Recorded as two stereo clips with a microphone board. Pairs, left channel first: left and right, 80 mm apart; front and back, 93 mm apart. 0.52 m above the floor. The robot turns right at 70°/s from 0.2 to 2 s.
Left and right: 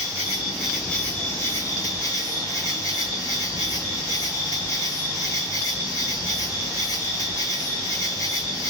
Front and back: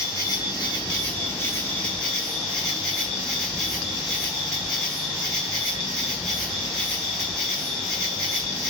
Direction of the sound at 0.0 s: 35° right.